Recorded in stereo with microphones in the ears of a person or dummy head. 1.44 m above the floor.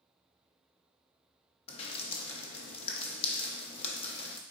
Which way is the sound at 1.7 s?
35° left (ahead or behind).